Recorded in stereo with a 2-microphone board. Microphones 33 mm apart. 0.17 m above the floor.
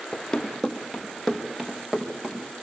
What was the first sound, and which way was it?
Running footsteps, 20° left (ahead or behind).